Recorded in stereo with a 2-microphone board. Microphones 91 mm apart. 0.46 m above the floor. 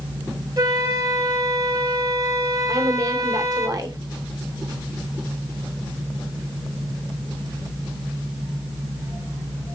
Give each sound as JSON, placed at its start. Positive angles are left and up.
{"t": 0.6, "sound": "a flute", "side_deg": -40, "distance_m": 2.5}
{"t": 2.7, "sound": "a woman speaking", "side_deg": -45, "distance_m": 1.6}